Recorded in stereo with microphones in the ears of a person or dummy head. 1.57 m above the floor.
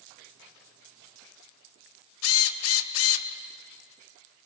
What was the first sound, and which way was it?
A drill, 75° left (ahead or behind).